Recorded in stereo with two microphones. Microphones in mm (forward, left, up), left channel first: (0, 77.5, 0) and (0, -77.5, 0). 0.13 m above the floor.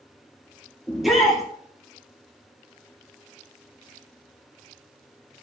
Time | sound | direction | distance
0.9 | a shout | centre (ahead or behind) | 3.5 m